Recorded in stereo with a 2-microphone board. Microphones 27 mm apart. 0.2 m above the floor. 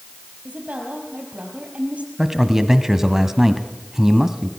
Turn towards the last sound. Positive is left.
turn(degrees=-15)  # may be behind; listen again after turning